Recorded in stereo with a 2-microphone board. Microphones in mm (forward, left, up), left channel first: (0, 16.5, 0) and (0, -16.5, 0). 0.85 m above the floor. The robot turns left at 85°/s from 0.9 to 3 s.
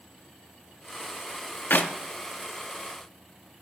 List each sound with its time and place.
1.7 s a clap: 75° left (ahead or behind), 0.7 m; by 1.9 s 55° left (ahead or behind), 0.7 m